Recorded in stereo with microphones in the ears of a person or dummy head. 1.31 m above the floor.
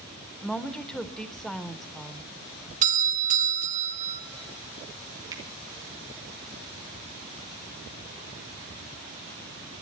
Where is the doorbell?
40° right (ahead or behind), 1.4 m.